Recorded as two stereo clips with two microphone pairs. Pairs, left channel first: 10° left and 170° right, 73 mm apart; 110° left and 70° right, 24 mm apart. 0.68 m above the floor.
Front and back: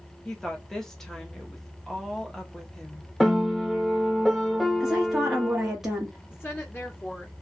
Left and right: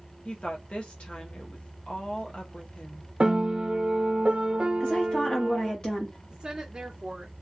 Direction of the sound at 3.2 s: 75° right.